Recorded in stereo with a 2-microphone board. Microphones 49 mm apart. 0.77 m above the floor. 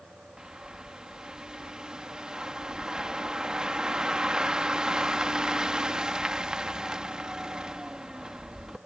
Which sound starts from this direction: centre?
A bird, at 0.4 s.